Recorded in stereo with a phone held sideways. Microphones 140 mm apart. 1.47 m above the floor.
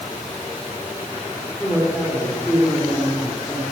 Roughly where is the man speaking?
Centre.